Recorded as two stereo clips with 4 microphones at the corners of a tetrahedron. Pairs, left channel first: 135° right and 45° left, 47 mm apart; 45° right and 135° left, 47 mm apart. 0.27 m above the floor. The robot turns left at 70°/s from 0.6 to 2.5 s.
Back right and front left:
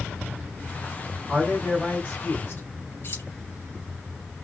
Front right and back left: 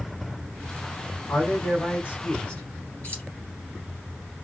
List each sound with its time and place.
1.3 s a man speaking: 15° right, 2.5 m; by 2.6 s 100° right, 2.5 m
3.0 s keys jangling: 100° right, 2.5 m